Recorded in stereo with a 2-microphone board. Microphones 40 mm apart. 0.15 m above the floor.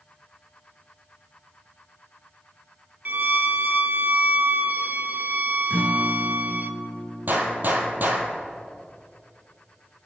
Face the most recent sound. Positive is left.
turn(degrees=-55)  # may be behind; listen again after turning